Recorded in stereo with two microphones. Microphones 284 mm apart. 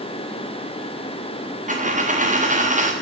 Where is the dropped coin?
25° right (ahead or behind), 1.6 m.